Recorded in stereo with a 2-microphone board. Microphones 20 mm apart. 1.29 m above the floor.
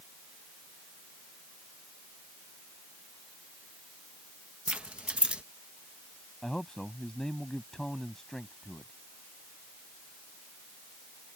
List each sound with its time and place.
4.7 s keys jangling: 70° right (ahead or behind)
6.4 s a man speaking: 25° left (ahead or behind)